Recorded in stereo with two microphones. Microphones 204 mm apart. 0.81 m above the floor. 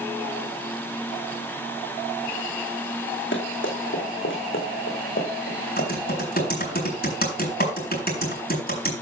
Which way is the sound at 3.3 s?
70° left (ahead or behind).